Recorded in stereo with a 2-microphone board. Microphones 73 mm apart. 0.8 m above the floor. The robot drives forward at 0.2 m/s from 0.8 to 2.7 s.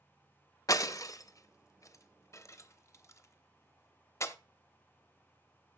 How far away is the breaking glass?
About 0.7 m.